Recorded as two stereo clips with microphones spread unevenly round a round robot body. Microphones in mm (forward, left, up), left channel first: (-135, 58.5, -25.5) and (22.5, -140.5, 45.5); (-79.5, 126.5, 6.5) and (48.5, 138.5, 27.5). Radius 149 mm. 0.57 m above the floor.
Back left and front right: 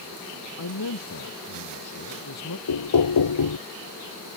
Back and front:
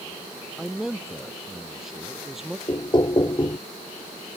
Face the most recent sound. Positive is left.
turn(degrees=130)